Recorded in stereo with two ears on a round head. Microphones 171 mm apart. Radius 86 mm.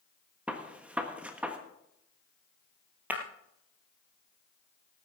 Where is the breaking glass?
10° right (ahead or behind), 1.8 m.